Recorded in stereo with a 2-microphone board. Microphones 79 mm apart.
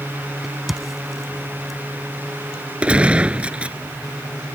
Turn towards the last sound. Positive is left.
turn(degrees=-15)  # may be behind; listen again after turning